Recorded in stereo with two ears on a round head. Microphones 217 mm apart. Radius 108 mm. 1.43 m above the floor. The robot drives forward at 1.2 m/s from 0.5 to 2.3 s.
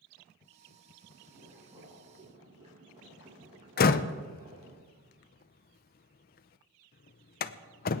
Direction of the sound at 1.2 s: 20° right (ahead or behind).